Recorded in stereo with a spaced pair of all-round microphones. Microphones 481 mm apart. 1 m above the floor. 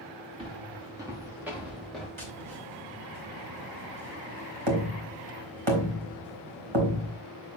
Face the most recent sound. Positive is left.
turn(degrees=-75)  # may be behind; listen again after turning